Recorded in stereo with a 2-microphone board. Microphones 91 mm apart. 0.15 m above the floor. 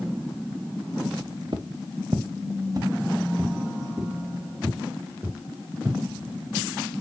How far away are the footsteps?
About 1.0 m.